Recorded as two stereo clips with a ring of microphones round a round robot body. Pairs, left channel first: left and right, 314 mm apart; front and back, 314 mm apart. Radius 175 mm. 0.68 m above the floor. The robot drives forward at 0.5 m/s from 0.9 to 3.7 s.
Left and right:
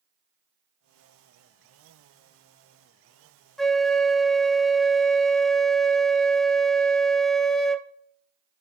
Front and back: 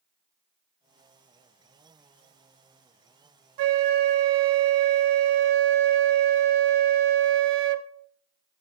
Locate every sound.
3.6 s a flute: straight behind, 0.6 m